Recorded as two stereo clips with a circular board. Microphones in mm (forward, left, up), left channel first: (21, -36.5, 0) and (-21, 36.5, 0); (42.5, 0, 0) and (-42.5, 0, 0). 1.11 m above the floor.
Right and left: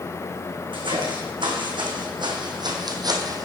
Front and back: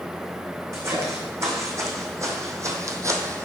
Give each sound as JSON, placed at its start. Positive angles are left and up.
{"t": 0.7, "sound": "footsteps", "azimuth_deg": 125, "distance_m": 3.0}